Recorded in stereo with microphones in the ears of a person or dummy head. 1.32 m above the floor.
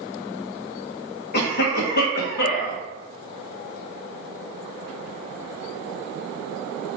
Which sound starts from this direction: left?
A cough, at 1.3 s.